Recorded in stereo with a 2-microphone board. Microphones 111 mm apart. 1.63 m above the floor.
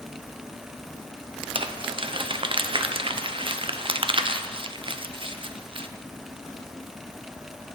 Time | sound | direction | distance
1.6 | crumpling | 50° right (ahead or behind) | 0.5 m